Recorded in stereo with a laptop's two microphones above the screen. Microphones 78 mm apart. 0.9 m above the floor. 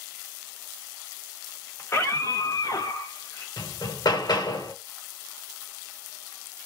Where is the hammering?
65° left (ahead or behind), 1.1 m.